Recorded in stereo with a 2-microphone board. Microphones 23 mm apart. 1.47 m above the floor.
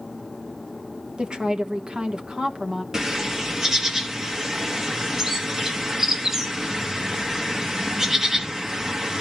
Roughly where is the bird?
Right.